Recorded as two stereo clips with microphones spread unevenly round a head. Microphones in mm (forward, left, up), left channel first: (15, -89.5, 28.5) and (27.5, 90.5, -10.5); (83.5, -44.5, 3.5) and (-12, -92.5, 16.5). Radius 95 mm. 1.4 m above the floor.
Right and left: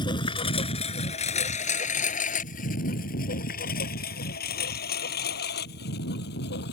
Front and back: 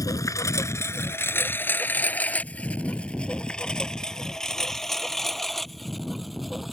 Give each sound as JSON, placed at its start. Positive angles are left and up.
{"t": 0.0, "sound": "a lawn mower", "azimuth_deg": -30}